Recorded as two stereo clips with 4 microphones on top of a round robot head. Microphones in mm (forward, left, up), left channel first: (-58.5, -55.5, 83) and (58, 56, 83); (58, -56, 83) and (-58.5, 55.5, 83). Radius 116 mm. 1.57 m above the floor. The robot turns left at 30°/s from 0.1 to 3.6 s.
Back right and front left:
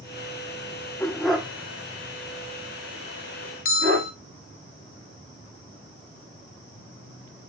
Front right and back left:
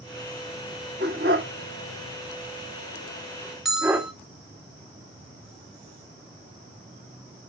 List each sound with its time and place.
1.0 s a dog barking: 140° left, 1.2 m; by 4.1 s 65° left, 1.2 m
3.6 s a bell: 135° right, 0.8 m